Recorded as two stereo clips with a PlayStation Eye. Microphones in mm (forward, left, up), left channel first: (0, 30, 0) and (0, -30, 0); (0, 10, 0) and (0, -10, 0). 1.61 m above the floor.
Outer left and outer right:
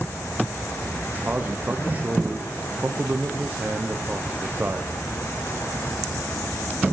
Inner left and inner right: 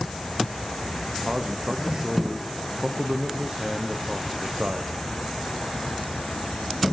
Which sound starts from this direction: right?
A man speaking, at 1.2 s.